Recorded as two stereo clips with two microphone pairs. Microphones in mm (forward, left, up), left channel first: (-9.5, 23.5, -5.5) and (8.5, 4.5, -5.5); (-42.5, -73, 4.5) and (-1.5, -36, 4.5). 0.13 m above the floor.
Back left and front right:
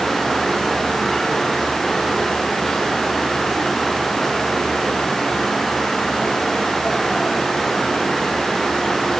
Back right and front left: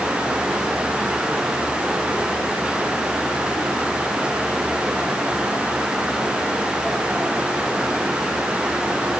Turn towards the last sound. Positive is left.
No sound to turn to.